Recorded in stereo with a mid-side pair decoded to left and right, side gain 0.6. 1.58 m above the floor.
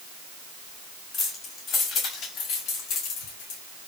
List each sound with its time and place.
1.1 s keys jangling: 45° left, 6 m; by 3.6 s 80° left, 4.5 m